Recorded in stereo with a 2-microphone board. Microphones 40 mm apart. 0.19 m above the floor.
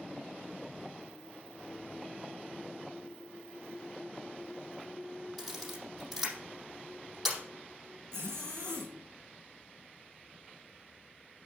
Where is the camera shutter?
Centre (ahead or behind), 5.5 m.